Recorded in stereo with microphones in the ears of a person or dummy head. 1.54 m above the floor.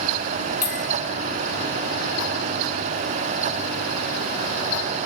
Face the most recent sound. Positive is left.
turn(degrees=35)  # may be behind; listen again after turning